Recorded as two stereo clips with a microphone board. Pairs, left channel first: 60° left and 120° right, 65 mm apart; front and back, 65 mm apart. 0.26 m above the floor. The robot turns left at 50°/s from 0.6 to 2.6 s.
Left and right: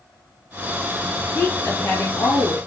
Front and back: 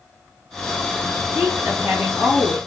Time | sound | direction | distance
1.4 | a woman speaking | 155° left | 1.5 m